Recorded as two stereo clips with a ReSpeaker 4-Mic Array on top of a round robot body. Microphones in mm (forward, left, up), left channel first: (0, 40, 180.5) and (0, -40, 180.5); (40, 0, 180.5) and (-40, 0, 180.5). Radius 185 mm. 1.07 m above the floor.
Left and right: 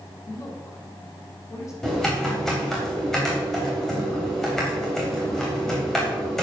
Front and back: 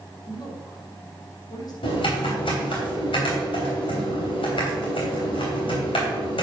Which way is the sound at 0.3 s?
35° left.